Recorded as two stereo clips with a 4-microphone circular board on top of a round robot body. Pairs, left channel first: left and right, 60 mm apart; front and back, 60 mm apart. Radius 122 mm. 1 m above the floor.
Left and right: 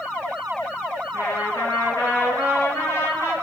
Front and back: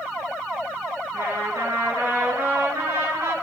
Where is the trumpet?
130° left, 5 m.